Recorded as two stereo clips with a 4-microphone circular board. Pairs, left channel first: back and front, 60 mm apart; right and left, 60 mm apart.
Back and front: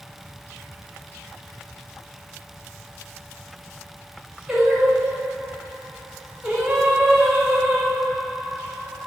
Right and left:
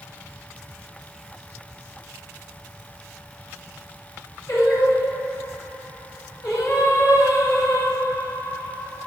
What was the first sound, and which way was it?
Singing, 80° right.